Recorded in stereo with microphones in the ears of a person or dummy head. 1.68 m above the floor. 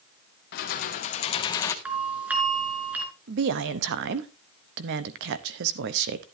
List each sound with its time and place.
0.5 s keys jangling: 55° left (ahead or behind), 1.5 m; by 1.8 s 15° left (ahead or behind), 1.0 m
1.9 s a doorbell: 10° right (ahead or behind), 3.5 m
3.3 s a woman speaking: 70° right (ahead or behind), 0.9 m